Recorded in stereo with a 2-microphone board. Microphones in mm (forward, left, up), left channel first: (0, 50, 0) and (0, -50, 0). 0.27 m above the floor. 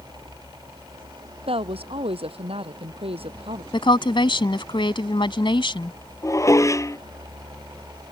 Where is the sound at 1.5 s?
75° right (ahead or behind).